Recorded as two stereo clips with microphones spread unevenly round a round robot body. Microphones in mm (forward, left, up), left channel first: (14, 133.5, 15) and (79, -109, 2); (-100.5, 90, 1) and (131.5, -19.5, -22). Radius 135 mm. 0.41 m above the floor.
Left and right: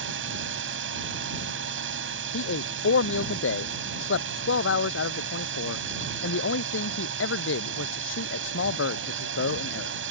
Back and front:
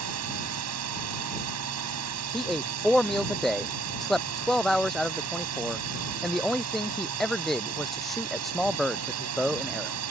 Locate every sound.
0.0 s a drone: 40° right
2.3 s a man speaking: 65° left